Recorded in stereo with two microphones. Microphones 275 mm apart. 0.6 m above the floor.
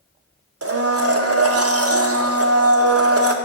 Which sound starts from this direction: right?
A blender, at 0.6 s.